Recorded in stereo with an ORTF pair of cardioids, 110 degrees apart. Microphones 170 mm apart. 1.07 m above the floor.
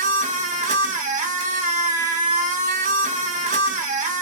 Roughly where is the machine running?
Ahead right.